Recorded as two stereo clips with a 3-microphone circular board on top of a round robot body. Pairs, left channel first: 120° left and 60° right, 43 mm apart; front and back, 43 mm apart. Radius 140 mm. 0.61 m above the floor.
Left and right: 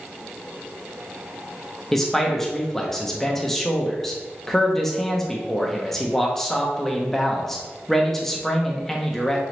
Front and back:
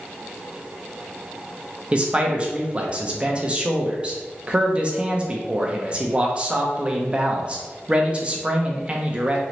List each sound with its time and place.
1.9 s a man speaking: 170° right, 0.9 m